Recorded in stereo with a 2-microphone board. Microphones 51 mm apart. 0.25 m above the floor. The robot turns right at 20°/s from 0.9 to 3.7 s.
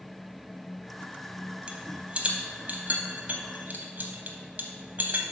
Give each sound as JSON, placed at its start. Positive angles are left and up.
{"t": 1.7, "sound": "a rattle", "side_deg": -25, "distance_m": 0.8}